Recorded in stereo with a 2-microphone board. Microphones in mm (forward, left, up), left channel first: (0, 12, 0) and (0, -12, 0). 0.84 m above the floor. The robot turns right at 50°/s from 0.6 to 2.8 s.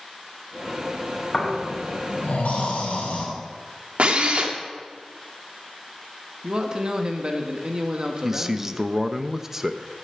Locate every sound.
1.3 s snoring: 30° left, 5.5 m; by 3.2 s 105° left, 5.5 m
4.0 s a drill: 55° right (ahead or behind), 2.0 m
6.4 s a man speaking: 35° right (ahead or behind), 1.4 m
8.2 s a man speaking: 15° right (ahead or behind), 0.7 m